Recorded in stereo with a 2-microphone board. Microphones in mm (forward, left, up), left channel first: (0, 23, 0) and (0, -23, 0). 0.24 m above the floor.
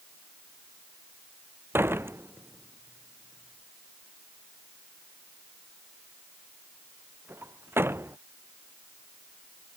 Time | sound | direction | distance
1.7 | a door slam | 55° right (ahead or behind) | ?